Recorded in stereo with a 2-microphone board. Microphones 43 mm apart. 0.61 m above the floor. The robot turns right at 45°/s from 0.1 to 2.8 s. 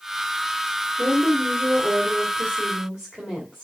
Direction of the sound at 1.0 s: 110° right.